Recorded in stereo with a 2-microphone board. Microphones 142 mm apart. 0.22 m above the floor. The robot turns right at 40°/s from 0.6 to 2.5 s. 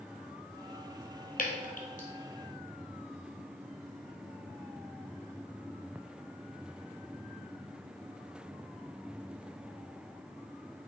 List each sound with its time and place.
1.4 s dripping: 85° left, 1.3 m; by 2.1 s 65° left (ahead or behind), 1.3 m